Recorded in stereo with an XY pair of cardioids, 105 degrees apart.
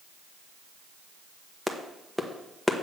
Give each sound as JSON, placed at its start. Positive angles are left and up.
{"t": 1.7, "sound": "a clap", "azimuth_deg": 0, "distance_m": 1.2}